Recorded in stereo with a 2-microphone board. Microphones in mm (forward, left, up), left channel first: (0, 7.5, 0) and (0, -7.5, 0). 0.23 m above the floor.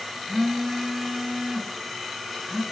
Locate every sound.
0.3 s a phone buzzing: 25° right (ahead or behind), 3 m